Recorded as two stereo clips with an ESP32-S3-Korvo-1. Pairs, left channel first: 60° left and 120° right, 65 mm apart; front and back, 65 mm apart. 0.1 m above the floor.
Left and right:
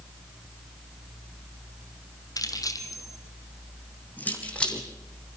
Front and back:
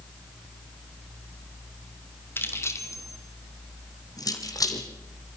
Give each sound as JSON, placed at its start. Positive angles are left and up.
{"t": 2.4, "sound": "keys jangling", "azimuth_deg": 50, "distance_m": 2.5}